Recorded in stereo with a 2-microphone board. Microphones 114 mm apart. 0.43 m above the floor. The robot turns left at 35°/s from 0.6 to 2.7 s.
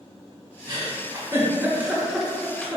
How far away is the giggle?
About 1.0 m.